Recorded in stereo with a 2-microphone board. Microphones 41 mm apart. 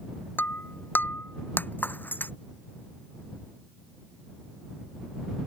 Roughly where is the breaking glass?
Left.